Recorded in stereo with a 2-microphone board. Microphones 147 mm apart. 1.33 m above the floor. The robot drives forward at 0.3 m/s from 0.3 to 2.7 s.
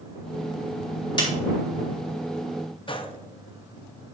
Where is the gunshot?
40° left (ahead or behind), 0.6 m.